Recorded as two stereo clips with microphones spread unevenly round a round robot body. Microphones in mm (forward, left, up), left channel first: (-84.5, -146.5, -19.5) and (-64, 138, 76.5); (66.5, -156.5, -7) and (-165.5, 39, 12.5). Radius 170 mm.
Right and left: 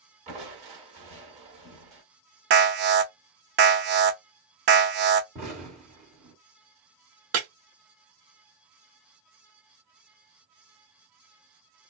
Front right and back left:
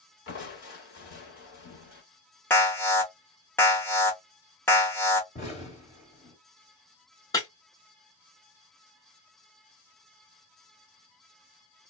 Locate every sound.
0.3 s crushing: 10° left, 1.1 m
2.5 s an alarm: 30° left, 0.5 m
5.3 s an explosion: 10° left, 1.7 m
7.3 s breaking glass: 35° left, 0.8 m